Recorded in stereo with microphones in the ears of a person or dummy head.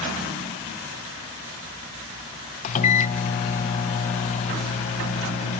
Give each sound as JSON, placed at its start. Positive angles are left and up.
{"t": 2.6, "sound": "a microwave", "side_deg": 40, "distance_m": 0.5}